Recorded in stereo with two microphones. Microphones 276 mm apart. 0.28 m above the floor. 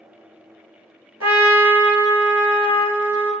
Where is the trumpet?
65° right (ahead or behind), 1.0 m.